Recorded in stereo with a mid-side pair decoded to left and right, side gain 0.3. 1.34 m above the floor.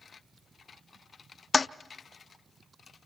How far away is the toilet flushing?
About 0.5 m.